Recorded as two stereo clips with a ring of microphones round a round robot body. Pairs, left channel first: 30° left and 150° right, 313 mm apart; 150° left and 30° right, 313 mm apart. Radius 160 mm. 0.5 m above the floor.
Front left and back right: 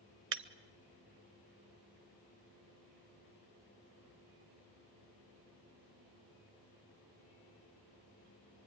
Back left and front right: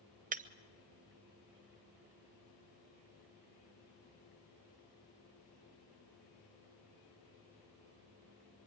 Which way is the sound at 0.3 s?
95° right.